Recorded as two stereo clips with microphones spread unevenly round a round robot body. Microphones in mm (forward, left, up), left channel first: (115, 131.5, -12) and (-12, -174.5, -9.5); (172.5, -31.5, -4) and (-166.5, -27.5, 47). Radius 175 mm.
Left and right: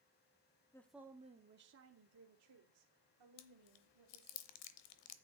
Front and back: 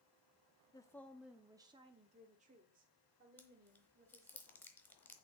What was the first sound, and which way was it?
A woman speaking, 5° left.